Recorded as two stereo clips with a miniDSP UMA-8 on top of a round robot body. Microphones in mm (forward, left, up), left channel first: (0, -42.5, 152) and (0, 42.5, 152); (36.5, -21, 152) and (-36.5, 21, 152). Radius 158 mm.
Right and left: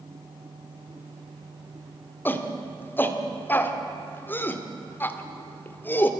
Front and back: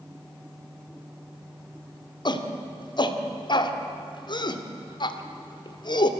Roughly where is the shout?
Ahead right.